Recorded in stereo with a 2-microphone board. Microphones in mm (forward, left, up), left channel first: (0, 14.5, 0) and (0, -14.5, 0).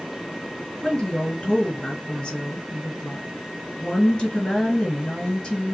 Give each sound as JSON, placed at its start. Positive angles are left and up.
{"t": 0.8, "sound": "a woman speaking", "side_deg": 30, "distance_m": 2.0}